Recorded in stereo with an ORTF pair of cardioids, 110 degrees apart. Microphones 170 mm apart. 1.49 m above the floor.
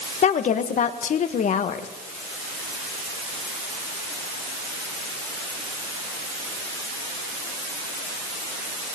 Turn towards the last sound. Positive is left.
turn(degrees=45)